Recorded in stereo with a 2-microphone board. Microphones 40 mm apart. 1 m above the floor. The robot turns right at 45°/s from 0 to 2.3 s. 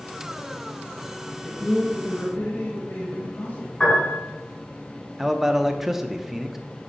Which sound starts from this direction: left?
A piano, at 3.8 s.